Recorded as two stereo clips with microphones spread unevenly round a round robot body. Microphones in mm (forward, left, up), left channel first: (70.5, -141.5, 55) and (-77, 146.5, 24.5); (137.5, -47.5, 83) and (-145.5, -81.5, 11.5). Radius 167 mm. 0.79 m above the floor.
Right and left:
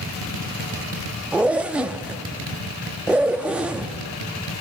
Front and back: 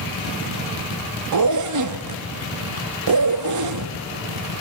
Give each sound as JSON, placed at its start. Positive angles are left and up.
{"t": 1.3, "sound": "a zipper", "azimuth_deg": -155, "distance_m": 0.7}